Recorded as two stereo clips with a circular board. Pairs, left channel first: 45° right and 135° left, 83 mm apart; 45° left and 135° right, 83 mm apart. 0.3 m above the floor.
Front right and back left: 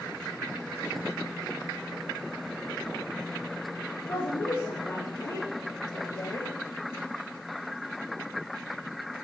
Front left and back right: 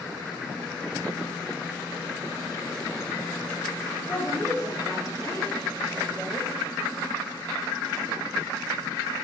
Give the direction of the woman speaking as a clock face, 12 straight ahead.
12 o'clock.